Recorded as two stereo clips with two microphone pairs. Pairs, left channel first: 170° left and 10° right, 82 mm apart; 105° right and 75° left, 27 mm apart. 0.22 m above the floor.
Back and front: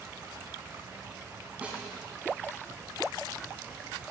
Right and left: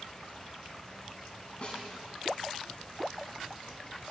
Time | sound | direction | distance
1.6 | a snare drum | 75° right | 1.7 m